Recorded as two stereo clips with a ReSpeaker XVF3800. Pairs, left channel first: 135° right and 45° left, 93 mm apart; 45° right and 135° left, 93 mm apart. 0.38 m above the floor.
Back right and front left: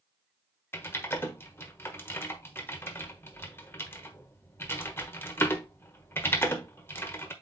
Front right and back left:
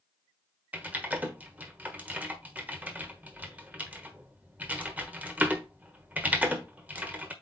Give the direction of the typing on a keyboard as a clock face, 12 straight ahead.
6 o'clock.